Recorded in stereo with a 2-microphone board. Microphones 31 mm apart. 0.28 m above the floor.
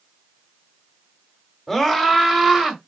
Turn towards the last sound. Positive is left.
turn(degrees=-25)  # may be behind; listen again after turning